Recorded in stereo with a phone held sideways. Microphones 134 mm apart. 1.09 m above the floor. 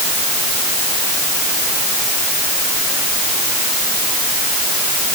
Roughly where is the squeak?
I don't hear a squeak.